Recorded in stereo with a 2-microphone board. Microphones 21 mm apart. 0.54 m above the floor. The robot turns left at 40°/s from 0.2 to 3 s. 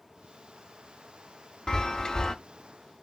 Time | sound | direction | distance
1.7 | a chime | 25° left (ahead or behind) | 0.6 m